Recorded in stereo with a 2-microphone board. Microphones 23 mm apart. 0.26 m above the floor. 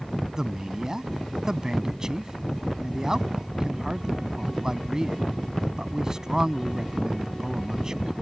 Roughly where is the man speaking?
Right.